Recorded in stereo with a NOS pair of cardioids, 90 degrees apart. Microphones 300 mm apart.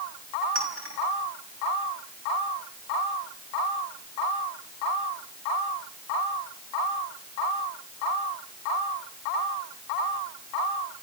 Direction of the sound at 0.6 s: 45° right.